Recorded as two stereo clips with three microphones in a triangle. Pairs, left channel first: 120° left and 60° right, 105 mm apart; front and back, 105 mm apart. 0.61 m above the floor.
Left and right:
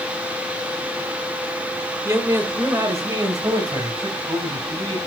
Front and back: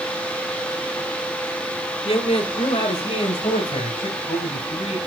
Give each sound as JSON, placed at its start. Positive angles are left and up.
{"t": 2.0, "sound": "a man speaking", "azimuth_deg": 0, "distance_m": 1.6}